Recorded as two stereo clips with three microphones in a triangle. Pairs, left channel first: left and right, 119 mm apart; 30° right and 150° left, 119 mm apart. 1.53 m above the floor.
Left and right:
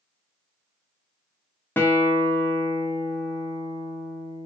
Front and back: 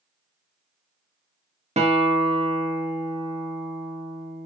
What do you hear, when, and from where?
1.8 s a guitar: 160° left, 0.6 m